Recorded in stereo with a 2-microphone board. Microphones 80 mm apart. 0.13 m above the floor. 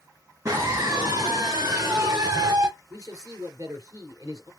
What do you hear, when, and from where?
0.5 s a scream: 45° right (ahead or behind), 2 m
2.9 s a man speaking: 50° right (ahead or behind), 2.5 m